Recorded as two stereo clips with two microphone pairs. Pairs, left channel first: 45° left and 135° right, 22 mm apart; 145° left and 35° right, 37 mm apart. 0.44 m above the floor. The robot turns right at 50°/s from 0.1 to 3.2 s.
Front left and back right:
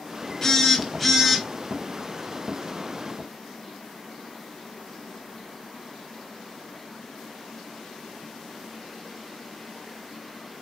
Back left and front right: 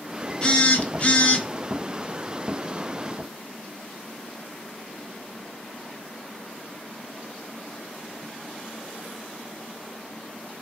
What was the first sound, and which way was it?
A phone buzzing, 105° left.